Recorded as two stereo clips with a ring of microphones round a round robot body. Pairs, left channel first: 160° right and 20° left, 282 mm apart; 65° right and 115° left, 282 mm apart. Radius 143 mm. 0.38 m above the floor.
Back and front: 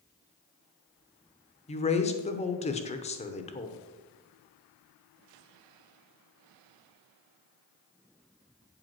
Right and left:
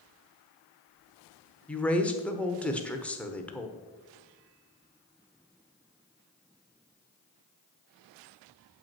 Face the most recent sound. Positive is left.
turn(degrees=-145)